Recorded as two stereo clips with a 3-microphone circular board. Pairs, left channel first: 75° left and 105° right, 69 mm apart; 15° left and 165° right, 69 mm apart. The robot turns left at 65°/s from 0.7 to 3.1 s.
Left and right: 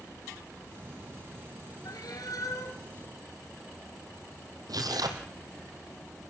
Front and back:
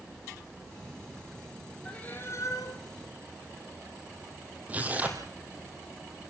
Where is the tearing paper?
100° right, 3.5 m.